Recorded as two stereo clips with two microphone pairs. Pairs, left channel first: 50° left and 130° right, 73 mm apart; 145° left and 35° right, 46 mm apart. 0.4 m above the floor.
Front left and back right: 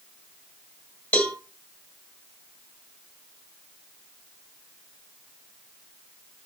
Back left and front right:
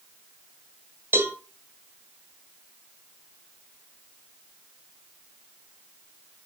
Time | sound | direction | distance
1.1 | a cowbell | 15° right | 1.4 m